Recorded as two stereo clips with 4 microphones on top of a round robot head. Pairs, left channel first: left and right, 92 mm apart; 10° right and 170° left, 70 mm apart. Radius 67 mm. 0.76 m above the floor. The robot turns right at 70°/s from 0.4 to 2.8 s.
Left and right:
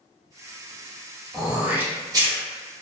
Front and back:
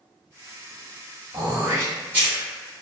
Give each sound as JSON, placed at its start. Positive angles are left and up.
{"t": 1.3, "sound": "throat clearing", "azimuth_deg": 180, "distance_m": 1.2}